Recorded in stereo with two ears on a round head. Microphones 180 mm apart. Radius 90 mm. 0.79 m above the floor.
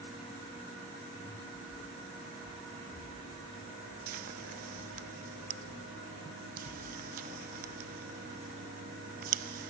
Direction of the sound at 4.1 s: 45° right (ahead or behind).